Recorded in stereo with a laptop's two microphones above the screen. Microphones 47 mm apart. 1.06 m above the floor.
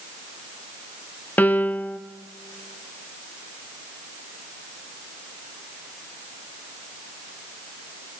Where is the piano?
35° left (ahead or behind), 0.9 m.